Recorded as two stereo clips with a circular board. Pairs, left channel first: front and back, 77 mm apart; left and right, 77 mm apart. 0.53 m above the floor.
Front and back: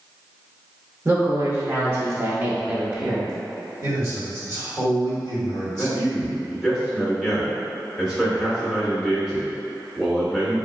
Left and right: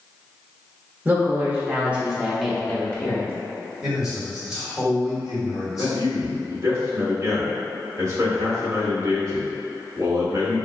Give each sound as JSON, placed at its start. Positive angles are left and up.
{"t": 1.1, "sound": "a woman speaking", "azimuth_deg": -140, "distance_m": 1.2}
{"t": 3.8, "sound": "a man speaking", "azimuth_deg": -175, "distance_m": 1.9}
{"t": 5.7, "sound": "a man speaking", "azimuth_deg": -100, "distance_m": 1.4}